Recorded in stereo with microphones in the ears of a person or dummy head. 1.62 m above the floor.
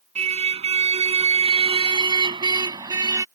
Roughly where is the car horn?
Right.